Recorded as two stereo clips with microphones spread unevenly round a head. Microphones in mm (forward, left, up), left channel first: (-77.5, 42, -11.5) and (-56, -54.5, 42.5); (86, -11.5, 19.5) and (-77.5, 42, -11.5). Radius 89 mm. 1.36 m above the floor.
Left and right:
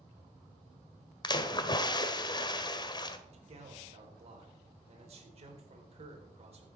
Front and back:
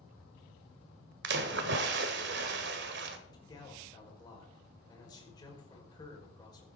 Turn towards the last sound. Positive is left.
turn(degrees=-85)